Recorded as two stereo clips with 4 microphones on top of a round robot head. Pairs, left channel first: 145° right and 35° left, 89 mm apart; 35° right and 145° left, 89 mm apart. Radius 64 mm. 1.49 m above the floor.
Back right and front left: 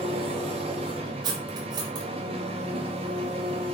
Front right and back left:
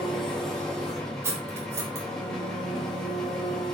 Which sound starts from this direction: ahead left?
An engine running, at 0.0 s.